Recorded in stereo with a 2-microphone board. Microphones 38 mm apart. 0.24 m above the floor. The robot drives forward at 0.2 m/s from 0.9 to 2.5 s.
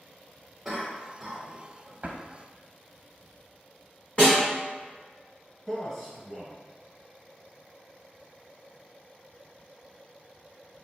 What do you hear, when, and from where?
0.7 s a cough: 5° right (ahead or behind), 1.1 m
2.0 s a drawer: 40° right (ahead or behind), 0.5 m
4.2 s a snare drum: 30° left (ahead or behind), 1.5 m
5.7 s a man speaking: 10° left (ahead or behind), 1.0 m